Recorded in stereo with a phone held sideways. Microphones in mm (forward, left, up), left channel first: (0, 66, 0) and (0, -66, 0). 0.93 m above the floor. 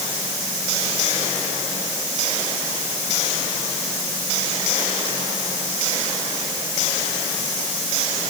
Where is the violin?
No violin in this recording.